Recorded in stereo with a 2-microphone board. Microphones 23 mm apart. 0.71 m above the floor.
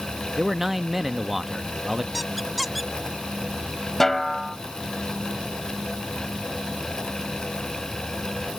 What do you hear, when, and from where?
0.4 s a man speaking: 10° right (ahead or behind)
2.1 s a squeak: centre (ahead or behind)
4.0 s a snare drum: 15° left (ahead or behind)